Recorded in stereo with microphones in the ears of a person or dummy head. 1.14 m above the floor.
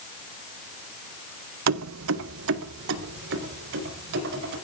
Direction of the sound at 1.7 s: 75° right (ahead or behind).